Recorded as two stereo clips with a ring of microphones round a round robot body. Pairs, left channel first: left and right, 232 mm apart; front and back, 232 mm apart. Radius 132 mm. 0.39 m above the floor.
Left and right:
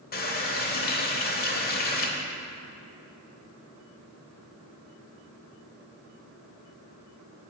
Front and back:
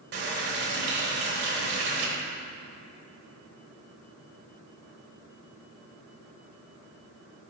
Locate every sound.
0.1 s a running tap: 135° left, 1.1 m